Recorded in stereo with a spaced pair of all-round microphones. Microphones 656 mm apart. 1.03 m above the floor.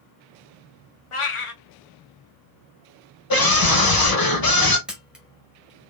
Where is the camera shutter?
Centre (ahead or behind), 1.3 m.